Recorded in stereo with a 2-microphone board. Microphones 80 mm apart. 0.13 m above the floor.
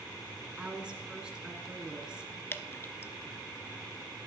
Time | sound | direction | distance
0.6 | a woman speaking | 10° right (ahead or behind) | 1.5 m
2.5 | dripping | 30° left (ahead or behind) | 0.6 m